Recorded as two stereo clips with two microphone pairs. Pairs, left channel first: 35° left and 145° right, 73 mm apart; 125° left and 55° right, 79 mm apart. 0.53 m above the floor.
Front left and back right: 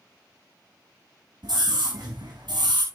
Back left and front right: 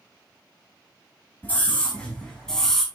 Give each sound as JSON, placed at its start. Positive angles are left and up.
{"t": 1.4, "sound": "a scream", "azimuth_deg": -165, "distance_m": 3.5}